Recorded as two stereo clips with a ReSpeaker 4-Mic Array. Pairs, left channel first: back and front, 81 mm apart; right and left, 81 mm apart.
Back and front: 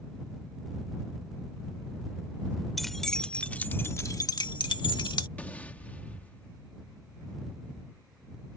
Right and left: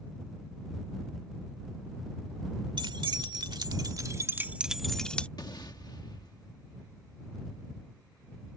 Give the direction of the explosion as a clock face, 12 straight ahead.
4 o'clock.